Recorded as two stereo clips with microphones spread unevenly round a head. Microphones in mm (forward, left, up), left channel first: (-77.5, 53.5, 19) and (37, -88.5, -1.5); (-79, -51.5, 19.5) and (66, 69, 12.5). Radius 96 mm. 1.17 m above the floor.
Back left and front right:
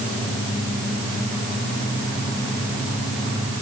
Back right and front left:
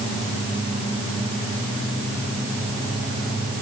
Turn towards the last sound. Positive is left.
No sound to turn to.